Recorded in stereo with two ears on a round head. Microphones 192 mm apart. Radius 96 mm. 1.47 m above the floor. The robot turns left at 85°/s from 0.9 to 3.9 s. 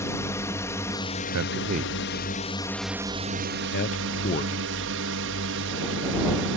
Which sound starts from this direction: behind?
A drone, at 0.0 s.